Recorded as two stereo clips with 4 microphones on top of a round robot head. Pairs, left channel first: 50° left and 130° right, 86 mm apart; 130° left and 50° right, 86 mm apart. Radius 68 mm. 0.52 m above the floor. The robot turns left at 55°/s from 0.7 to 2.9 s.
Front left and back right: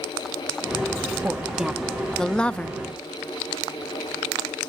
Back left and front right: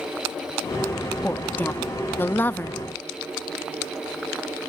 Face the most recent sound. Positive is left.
turn(degrees=90)